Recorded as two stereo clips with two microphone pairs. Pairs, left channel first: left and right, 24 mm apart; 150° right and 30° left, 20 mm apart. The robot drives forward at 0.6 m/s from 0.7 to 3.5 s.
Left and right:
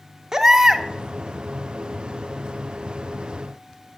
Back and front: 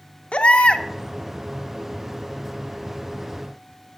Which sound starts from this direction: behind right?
A baby crying, at 0.3 s.